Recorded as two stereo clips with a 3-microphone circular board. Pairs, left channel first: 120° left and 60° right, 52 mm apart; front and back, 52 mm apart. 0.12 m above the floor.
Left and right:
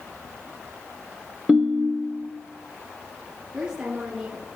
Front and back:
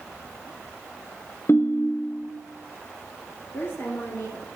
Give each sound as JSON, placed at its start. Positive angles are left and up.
{"t": 1.5, "sound": "a ringtone", "azimuth_deg": 10, "distance_m": 0.6}
{"t": 3.5, "sound": "a woman speaking", "azimuth_deg": 10, "distance_m": 2.5}